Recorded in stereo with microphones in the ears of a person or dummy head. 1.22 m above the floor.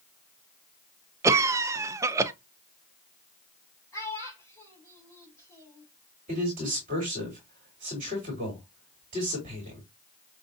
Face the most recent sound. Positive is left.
turn(degrees=-40)  # may be behind; listen again after turning